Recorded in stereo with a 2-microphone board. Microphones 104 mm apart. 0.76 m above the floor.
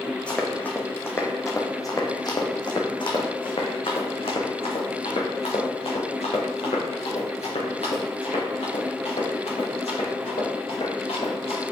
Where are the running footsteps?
10° left (ahead or behind), 2.0 m; by 11.6 s 75° left (ahead or behind), 5.5 m.